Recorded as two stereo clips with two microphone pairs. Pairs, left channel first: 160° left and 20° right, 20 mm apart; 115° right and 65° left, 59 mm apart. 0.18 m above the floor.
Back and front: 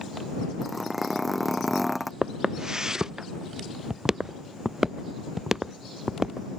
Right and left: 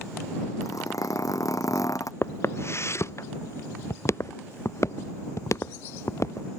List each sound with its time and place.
0.6 s a zipper: 100° right
2.2 s footsteps: 70° right; by 6.5 s 85° right